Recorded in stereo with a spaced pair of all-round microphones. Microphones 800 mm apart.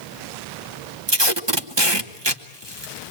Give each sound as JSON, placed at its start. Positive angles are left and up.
{"t": 1.1, "sound": "tape being pulled", "side_deg": -30, "distance_m": 1.2}